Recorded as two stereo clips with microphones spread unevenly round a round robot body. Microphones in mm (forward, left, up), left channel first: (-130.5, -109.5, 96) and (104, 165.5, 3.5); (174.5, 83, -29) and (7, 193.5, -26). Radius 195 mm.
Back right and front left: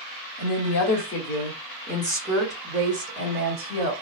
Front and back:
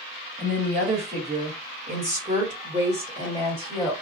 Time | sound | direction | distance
0.4 | a woman speaking | 160° right | 1.4 m